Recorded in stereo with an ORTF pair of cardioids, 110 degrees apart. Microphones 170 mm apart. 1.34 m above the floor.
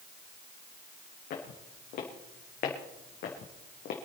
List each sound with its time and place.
1.3 s footsteps: 70° left, 6 m; by 4.0 s 65° left, 4 m